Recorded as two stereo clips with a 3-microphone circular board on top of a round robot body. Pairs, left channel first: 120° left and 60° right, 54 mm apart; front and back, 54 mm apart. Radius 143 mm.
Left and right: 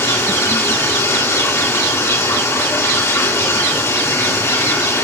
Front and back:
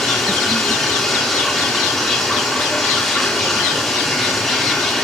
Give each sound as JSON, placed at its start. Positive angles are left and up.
{"t": 0.0, "sound": "running water", "azimuth_deg": 85, "distance_m": 4.0}